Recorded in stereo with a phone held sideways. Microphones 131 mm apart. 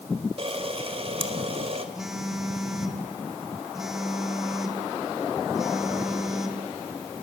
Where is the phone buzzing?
5° right (ahead or behind), 2.5 m.